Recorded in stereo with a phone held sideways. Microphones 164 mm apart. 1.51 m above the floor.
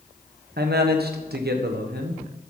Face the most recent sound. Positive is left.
turn(degrees=-80)